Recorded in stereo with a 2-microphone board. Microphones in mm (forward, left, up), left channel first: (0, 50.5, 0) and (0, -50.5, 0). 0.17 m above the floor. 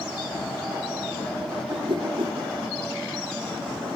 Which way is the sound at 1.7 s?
60° right (ahead or behind).